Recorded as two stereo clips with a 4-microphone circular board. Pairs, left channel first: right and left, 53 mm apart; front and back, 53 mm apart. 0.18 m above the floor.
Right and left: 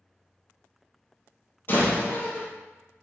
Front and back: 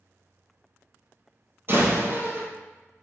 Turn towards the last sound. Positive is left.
turn(degrees=-135)